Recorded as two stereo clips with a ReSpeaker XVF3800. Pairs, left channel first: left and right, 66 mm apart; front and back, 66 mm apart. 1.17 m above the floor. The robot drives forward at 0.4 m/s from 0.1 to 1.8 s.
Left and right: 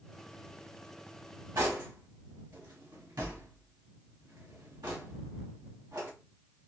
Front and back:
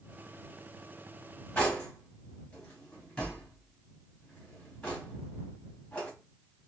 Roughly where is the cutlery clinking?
Right.